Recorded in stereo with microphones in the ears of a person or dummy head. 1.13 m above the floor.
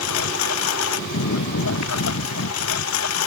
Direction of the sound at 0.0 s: 85° left.